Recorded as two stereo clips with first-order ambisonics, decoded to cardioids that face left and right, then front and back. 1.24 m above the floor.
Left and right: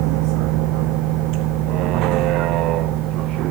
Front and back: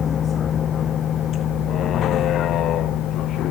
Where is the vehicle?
65° right; by 3.5 s 50° right.